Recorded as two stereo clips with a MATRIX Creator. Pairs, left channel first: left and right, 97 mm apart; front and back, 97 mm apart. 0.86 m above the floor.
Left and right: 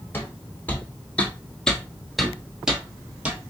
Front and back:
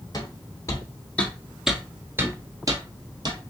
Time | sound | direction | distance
0.1 | footsteps | 30° left | 1.2 m